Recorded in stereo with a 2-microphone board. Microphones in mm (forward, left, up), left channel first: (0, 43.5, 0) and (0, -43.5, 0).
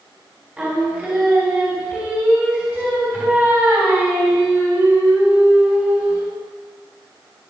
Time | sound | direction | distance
0.6 | singing | 20° right (ahead or behind) | 3 m